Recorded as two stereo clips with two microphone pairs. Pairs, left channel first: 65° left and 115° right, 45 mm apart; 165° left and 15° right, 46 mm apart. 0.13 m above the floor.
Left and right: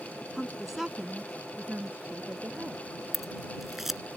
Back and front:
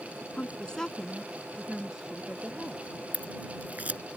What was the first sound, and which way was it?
A woman speaking, 150° left.